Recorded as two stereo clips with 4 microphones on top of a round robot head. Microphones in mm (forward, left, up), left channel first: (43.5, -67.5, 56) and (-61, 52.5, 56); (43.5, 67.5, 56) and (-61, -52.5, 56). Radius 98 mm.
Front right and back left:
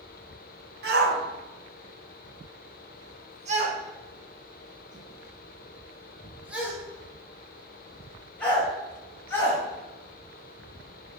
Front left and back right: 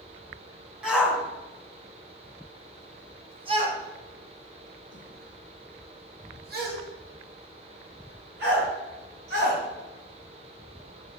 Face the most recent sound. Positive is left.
turn(degrees=-125)